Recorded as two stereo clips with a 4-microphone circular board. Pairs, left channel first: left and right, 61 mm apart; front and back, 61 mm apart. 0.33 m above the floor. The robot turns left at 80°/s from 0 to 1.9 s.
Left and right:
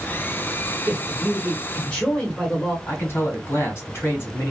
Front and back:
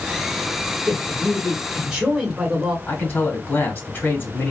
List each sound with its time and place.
0.9 s a man speaking: 145° right, 1.1 m; by 2.8 s 130° left, 1.1 m
2.9 s a man speaking: 50° left, 1.8 m